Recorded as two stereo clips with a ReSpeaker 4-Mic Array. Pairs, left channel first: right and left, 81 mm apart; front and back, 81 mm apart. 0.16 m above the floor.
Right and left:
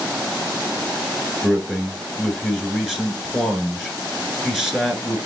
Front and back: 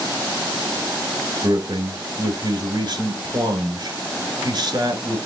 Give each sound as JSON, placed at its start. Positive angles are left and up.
{"t": 1.4, "sound": "a man speaking", "azimuth_deg": 175, "distance_m": 1.9}